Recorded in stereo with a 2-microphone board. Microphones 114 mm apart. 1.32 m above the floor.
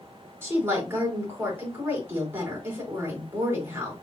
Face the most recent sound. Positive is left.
turn(degrees=-20)  # may be behind; listen again after turning